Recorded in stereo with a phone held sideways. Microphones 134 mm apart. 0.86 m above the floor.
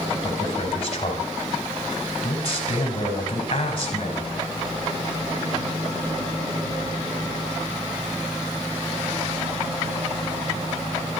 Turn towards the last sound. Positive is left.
turn(degrees=45)  # may be behind; listen again after turning